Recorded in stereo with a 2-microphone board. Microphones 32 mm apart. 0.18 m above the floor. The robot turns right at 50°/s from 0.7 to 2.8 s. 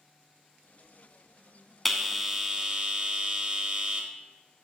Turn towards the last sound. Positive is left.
turn(degrees=-135)